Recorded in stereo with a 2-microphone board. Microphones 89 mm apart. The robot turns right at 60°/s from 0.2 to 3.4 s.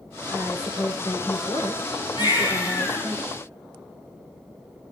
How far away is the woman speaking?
About 9.5 m.